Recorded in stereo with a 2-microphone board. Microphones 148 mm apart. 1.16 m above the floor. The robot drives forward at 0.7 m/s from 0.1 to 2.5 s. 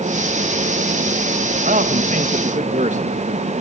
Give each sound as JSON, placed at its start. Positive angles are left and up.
{"t": 1.6, "sound": "a man speaking", "side_deg": -70, "distance_m": 1.5}